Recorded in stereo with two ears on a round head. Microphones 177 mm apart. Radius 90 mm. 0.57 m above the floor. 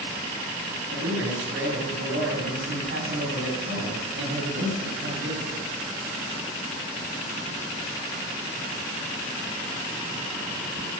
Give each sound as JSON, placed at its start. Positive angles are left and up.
{"t": 0.9, "sound": "a man speaking", "side_deg": -65, "distance_m": 4.0}